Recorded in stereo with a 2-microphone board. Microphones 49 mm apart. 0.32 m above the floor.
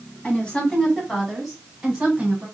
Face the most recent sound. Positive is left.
turn(degrees=-20)  # may be behind; listen again after turning